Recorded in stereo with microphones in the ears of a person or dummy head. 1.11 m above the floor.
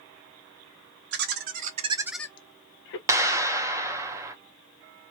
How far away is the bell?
I don't hear a bell.